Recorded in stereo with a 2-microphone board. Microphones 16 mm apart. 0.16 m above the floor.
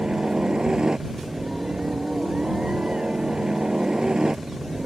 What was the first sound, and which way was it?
A helicopter, 60° right (ahead or behind).